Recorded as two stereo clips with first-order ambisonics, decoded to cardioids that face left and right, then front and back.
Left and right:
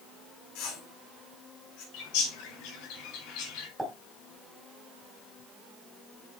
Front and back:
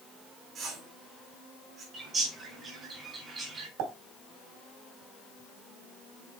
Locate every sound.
0.6 s a whoosh: 120° left, 4.5 m
1.9 s a bird: 110° left, 3.5 m
3.8 s a pop: 175° right, 3.5 m